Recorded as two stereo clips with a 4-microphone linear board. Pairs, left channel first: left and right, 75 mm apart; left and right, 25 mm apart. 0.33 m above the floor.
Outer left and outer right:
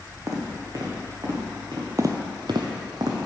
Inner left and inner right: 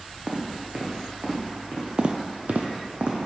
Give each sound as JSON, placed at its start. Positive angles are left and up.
{"t": 0.3, "sound": "footsteps", "side_deg": -40, "distance_m": 1.1}
{"t": 2.0, "sound": "footsteps", "side_deg": -40, "distance_m": 0.6}